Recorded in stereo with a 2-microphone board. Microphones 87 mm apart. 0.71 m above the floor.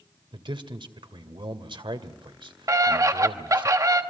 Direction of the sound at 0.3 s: 75° right (ahead or behind).